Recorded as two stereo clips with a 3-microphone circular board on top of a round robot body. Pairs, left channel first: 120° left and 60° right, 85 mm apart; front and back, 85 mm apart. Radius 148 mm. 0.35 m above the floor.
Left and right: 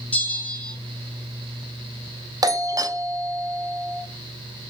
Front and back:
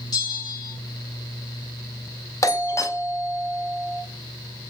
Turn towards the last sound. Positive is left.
turn(degrees=-40)